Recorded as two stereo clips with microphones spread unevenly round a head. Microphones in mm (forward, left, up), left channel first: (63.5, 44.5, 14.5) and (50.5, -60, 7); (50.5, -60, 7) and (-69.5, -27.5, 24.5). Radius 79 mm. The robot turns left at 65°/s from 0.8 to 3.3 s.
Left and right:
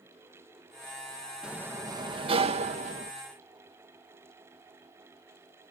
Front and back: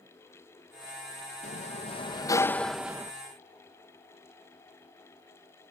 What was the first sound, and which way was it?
A sliding door, 15° right.